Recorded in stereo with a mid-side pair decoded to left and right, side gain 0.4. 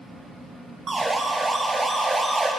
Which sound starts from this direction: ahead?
A siren, at 0.9 s.